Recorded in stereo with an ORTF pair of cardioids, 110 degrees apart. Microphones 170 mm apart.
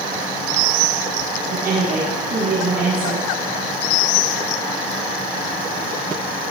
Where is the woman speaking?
60° right, 7 m.